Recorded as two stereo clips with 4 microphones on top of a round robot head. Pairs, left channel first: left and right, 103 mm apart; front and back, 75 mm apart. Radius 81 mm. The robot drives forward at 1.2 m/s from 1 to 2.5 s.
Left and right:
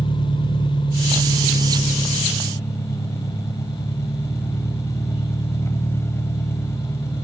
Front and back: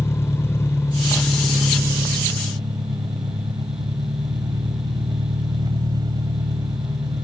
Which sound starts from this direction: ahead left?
An engine running, at 0.0 s.